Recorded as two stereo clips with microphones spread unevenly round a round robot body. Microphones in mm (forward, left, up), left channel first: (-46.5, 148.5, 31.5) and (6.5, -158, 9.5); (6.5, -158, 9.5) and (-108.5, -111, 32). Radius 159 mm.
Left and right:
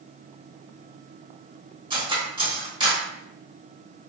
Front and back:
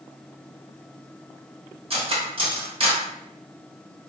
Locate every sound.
1.9 s cutlery clinking: 150° right, 1.2 m